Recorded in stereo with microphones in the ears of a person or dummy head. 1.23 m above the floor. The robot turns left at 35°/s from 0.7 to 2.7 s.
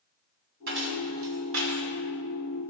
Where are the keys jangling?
60° right (ahead or behind), 1.3 m; by 1.8 s 65° right (ahead or behind), 1.3 m.